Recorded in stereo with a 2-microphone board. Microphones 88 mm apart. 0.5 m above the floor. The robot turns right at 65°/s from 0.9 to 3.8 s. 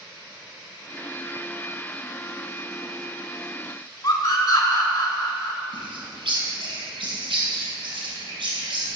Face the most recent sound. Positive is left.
turn(degrees=-75)  # may be behind; listen again after turning